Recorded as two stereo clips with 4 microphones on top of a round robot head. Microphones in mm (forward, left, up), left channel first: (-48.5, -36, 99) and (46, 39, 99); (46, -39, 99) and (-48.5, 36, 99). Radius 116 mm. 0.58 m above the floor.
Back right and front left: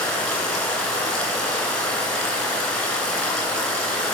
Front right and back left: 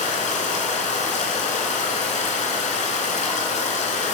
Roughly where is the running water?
Ahead right.